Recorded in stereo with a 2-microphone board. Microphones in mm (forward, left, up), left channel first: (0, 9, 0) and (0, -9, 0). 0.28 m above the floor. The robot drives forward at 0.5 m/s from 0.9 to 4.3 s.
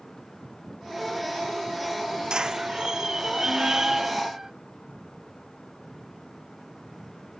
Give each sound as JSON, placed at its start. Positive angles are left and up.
{"t": 2.3, "sound": "a squeak", "side_deg": -35}